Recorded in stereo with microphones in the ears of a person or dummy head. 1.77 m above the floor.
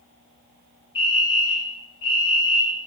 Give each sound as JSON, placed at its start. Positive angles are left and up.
{"t": 0.9, "sound": "a fire alarm", "side_deg": 25, "distance_m": 1.8}